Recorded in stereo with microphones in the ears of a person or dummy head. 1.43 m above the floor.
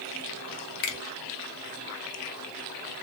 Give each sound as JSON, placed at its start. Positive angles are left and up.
{"t": 0.8, "sound": "a finger snap", "side_deg": 55, "distance_m": 0.8}